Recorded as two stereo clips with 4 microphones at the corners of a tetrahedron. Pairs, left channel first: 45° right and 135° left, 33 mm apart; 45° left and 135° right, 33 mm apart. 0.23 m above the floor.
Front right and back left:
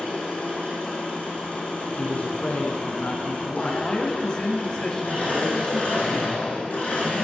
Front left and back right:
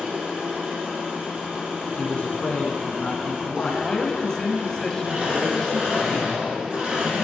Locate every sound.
0.0 s an engine running: 85° right, 5 m
2.0 s a man speaking: 5° right, 1.9 m
3.8 s a man speaking: 10° right, 1.6 m